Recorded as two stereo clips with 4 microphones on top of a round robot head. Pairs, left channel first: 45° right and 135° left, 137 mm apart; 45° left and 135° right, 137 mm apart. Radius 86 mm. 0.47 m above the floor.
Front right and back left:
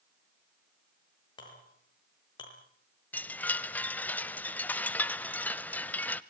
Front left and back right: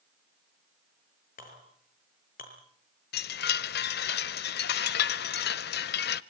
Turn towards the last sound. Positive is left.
turn(degrees=35)